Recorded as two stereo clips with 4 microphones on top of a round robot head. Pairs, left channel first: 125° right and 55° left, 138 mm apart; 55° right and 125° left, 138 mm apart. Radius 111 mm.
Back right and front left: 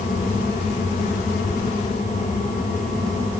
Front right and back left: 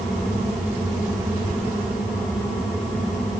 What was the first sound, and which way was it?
Only background noise.